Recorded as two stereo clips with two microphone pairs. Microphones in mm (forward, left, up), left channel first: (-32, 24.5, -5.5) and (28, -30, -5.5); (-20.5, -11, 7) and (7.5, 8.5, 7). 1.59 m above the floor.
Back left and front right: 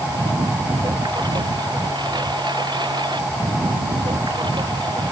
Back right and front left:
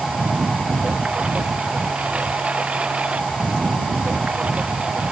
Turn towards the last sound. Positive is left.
turn(degrees=-20)